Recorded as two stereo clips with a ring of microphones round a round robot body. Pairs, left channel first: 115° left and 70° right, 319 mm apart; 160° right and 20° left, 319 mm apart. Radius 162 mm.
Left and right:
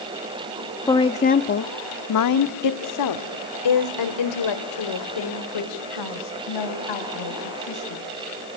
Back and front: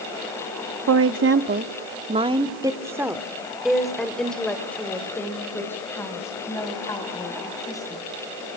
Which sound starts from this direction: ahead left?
A woman speaking, at 0.9 s.